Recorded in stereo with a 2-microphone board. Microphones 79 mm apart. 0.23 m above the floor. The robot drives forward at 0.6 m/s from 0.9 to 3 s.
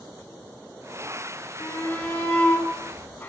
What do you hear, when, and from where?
1.6 s a shout: 25° left (ahead or behind), 1.8 m; by 3.3 s 20° left (ahead or behind), 2 m